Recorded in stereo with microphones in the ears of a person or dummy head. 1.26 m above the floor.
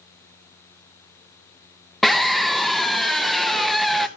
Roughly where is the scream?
Centre.